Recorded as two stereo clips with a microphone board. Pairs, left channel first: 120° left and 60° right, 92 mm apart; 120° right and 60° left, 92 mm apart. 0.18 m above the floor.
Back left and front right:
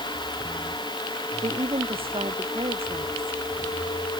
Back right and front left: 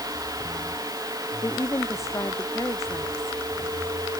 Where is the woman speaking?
65° right.